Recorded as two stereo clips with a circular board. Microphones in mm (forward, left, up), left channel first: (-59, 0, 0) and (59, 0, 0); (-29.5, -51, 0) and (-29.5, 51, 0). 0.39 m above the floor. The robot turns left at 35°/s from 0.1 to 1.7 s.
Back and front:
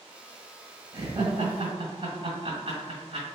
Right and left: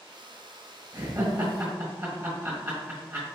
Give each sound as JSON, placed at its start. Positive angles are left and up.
{"t": 0.9, "sound": "laughter", "azimuth_deg": 45, "distance_m": 1.6}